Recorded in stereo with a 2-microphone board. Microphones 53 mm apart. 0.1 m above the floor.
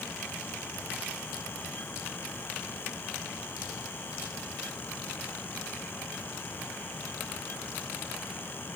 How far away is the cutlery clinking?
No cutlery clinking in this recording.